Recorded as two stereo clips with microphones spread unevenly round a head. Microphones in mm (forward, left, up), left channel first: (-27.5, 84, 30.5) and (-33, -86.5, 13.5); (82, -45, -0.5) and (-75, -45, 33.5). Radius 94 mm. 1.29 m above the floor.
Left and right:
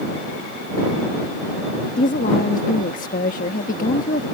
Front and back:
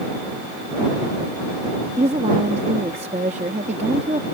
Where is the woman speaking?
125° left.